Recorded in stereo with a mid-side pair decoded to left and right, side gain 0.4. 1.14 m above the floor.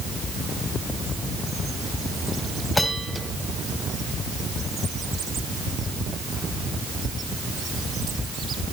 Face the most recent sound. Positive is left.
turn(degrees=20)